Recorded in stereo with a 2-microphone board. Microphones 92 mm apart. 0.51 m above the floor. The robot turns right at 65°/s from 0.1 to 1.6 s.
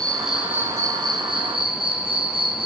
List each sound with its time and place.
0.0 s an insect: 170° left, 3 m; by 2.7 s 90° right, 3 m